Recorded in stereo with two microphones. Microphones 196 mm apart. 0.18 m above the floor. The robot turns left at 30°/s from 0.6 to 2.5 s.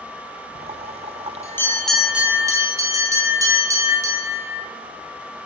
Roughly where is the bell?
Ahead left.